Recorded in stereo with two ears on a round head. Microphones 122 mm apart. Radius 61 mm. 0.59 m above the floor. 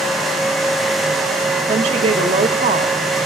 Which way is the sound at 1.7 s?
50° right (ahead or behind).